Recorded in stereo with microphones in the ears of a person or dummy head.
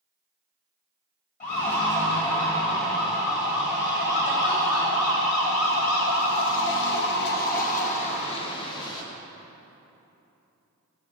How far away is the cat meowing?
No cat meowing in this recording.